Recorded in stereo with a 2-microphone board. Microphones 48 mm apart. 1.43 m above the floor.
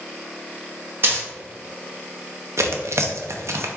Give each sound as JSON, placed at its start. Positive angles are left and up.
{"t": 1.0, "sound": "a dropped coin", "side_deg": -50, "distance_m": 1.4}
{"t": 2.6, "sound": "tearing paper", "side_deg": -75, "distance_m": 0.5}